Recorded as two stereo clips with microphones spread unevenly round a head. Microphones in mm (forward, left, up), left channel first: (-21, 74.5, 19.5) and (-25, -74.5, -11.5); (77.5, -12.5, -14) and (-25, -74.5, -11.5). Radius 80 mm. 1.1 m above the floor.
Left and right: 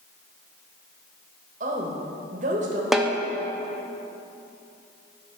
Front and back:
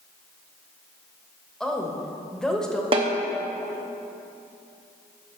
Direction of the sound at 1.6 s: 55° right.